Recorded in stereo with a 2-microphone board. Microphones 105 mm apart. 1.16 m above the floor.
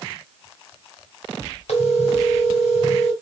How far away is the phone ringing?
About 2 m.